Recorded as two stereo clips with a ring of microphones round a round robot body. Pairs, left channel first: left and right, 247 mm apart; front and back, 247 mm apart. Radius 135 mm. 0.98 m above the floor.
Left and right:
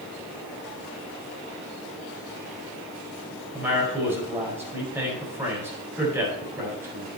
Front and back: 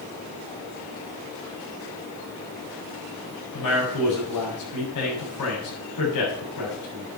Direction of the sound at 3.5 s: 10° right.